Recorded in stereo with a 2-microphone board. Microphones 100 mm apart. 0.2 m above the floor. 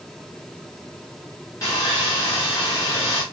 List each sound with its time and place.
1.6 s sawing: 35° left (ahead or behind), 5.5 m